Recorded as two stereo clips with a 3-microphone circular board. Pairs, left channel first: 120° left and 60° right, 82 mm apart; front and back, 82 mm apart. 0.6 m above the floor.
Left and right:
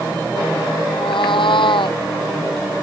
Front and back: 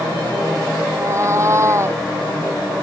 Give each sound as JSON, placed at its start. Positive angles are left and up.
{"t": 0.9, "sound": "a cat meowing", "azimuth_deg": 125}